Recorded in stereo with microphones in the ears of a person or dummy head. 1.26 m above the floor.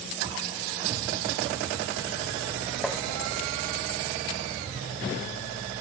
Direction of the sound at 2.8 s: Centre (ahead or behind).